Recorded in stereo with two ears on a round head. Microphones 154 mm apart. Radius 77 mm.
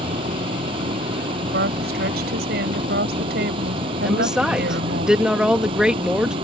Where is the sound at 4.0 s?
5° right (ahead or behind).